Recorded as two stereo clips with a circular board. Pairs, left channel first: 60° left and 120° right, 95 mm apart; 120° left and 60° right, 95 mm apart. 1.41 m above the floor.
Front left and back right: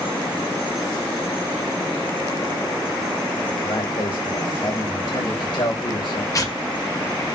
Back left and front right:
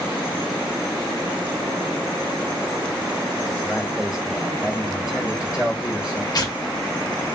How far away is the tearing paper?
About 0.9 m.